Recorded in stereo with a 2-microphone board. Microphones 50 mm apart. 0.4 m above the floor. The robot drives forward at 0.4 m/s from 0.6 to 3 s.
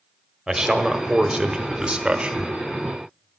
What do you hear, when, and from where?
0.5 s a man speaking: 15° right (ahead or behind), 1.2 m; by 2.5 s 25° right (ahead or behind), 0.8 m